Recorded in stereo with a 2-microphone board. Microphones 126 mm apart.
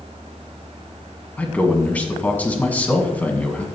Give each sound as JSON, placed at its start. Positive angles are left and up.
{"t": 1.4, "sound": "a man speaking", "side_deg": 10, "distance_m": 2.0}